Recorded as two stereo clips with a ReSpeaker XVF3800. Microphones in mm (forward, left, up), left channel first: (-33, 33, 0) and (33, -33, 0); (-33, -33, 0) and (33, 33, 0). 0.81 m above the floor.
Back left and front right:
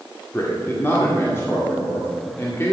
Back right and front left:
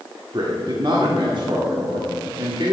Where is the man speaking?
75° left, 2.0 m.